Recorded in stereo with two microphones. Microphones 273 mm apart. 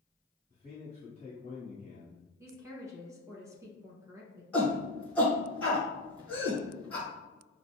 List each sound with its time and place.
0.5 s a man speaking: 25° left (ahead or behind), 1.4 m
2.4 s a woman speaking: 10° right (ahead or behind), 1.2 m
4.5 s a shout: 5° left (ahead or behind), 1.8 m